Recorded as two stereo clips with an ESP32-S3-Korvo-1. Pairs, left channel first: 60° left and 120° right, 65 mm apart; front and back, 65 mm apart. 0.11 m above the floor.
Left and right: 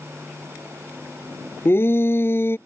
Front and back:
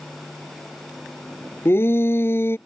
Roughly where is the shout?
Ahead left.